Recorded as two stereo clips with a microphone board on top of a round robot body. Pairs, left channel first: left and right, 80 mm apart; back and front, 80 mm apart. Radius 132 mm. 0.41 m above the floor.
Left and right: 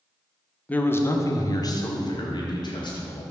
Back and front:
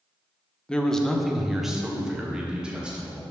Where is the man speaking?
120° left, 1.1 m; by 3.2 s 75° left, 3 m.